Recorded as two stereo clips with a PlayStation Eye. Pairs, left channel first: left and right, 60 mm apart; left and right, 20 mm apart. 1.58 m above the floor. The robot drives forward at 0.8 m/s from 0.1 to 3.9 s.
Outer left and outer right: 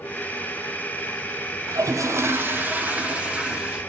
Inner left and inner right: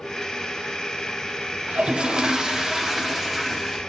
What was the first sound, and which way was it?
A toilet flushing, 70° right (ahead or behind).